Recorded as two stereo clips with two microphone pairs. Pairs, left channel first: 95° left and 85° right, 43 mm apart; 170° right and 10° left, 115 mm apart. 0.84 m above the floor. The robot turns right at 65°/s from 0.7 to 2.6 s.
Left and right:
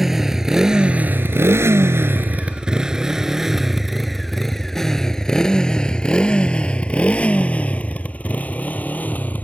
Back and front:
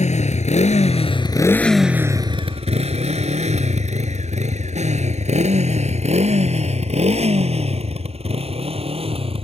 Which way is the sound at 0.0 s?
170° right.